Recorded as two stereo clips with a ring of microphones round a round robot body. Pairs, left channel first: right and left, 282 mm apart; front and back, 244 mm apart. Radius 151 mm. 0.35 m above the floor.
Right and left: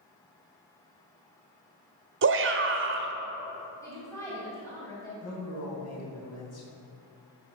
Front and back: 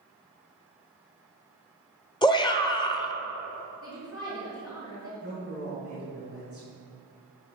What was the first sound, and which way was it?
A shout, 65° left.